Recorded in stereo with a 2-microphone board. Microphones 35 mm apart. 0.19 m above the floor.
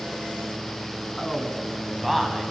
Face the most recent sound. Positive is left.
turn(degrees=-5)  # may be behind; listen again after turning